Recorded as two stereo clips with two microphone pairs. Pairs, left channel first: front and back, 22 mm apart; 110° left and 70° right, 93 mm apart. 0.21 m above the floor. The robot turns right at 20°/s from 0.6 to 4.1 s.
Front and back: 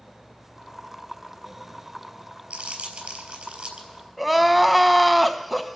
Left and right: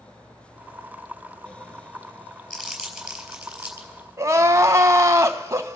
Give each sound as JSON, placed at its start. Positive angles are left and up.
{"t": 2.5, "sound": "crumpling", "azimuth_deg": -165, "distance_m": 4.0}
{"t": 4.2, "sound": "crying", "azimuth_deg": -95, "distance_m": 0.7}